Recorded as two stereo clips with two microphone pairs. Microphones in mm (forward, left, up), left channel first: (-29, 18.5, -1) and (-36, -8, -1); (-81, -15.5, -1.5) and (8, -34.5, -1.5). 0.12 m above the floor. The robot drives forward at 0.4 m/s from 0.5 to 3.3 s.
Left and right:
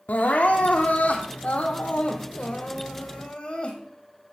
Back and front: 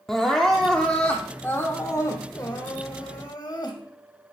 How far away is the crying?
About 1.2 m.